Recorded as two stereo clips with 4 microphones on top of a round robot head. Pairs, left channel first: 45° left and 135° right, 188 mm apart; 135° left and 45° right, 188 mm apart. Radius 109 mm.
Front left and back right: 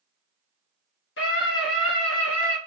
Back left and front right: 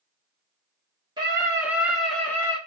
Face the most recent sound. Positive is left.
turn(degrees=60)